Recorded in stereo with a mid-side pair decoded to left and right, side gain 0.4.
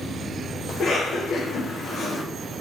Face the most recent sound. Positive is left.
turn(degrees=60)